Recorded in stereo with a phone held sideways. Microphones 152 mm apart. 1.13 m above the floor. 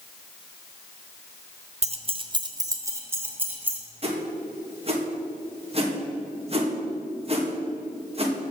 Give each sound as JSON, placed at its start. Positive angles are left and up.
{"t": 1.8, "sound": "keys jangling", "side_deg": -45, "distance_m": 0.6}
{"t": 4.0, "sound": "a whoosh", "side_deg": -40, "distance_m": 1.6}